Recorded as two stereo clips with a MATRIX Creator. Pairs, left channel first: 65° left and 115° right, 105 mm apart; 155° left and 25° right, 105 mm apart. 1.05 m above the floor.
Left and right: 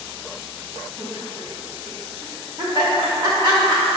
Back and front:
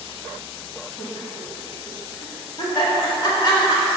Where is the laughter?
160° right, 2 m.